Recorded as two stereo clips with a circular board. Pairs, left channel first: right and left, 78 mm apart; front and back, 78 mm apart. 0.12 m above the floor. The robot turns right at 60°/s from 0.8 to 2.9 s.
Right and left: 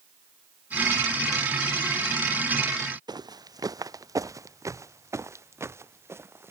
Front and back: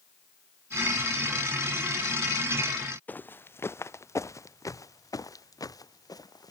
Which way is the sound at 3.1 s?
65° left.